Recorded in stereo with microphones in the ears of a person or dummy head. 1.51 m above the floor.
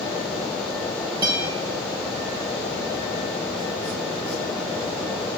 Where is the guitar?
25° right (ahead or behind), 1.0 m.